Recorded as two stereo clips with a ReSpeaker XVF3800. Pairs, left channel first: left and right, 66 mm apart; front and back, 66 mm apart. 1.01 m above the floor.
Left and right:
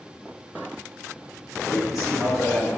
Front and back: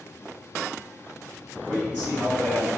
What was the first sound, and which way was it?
A man speaking, 110° left.